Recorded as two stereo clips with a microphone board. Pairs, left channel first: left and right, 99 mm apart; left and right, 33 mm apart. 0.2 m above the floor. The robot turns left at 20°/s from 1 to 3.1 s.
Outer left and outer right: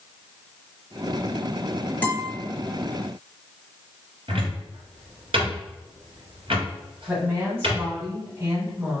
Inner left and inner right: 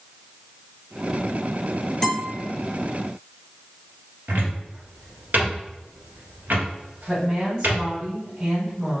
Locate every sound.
2.0 s a guitar: 15° left (ahead or behind), 1.7 m; by 2.3 s 20° left (ahead or behind), 1.7 m
4.3 s a cupboard door: 65° right (ahead or behind), 1.5 m
7.1 s a woman speaking: 25° right (ahead or behind), 1.4 m